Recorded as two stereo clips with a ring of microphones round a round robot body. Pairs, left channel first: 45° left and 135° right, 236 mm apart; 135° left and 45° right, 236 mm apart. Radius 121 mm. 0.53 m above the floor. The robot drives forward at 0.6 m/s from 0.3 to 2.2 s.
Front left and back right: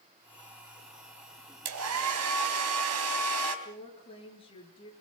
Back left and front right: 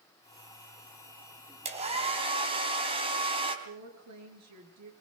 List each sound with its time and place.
1.6 s a hair dryer: 110° right, 3.5 m; by 3.5 s 115° right, 3.5 m
3.6 s a woman speaking: 25° right, 7.5 m